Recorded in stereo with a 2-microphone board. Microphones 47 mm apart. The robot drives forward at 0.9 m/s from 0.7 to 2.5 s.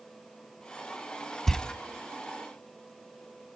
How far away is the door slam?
About 0.9 m.